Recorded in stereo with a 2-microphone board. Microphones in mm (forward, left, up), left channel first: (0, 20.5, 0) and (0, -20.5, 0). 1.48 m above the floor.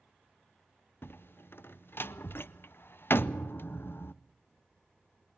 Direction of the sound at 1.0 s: 60° left (ahead or behind).